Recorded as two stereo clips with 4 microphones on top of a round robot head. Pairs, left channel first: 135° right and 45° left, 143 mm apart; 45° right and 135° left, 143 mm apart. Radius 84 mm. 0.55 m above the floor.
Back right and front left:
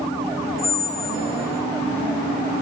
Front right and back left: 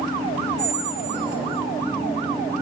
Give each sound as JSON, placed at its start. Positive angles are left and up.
{"t": 0.6, "sound": "a squeak", "azimuth_deg": -150, "distance_m": 0.9}